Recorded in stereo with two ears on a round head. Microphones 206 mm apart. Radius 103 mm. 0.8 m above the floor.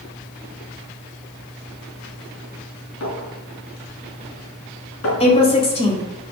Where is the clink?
65° left (ahead or behind), 4.5 m.